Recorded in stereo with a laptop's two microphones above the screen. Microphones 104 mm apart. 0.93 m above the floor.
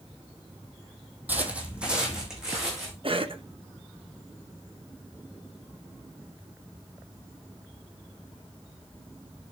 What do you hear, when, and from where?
1.3 s footsteps: 15° right (ahead or behind), 1.2 m; by 2.9 s 5° right (ahead or behind), 3 m
3.0 s a cough: 55° right (ahead or behind), 0.8 m